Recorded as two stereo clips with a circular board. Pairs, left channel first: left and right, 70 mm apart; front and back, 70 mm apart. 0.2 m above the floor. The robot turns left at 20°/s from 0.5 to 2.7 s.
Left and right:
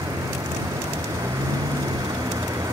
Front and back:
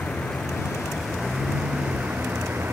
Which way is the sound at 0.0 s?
75° right.